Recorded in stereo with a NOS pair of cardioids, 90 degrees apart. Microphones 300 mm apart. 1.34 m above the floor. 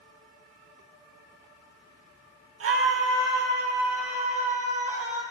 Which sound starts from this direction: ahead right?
A scream, at 2.6 s.